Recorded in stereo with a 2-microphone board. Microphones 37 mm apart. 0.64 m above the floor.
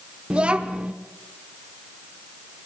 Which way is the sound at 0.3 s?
30° right (ahead or behind).